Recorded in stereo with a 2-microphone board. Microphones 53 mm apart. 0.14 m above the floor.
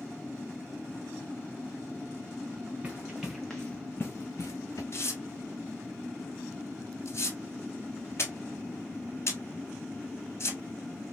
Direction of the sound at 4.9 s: 55° left (ahead or behind).